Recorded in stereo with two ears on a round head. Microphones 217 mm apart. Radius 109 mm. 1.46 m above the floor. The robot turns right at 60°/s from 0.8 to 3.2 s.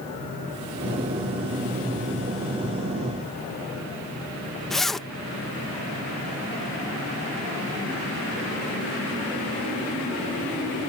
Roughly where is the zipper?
Centre.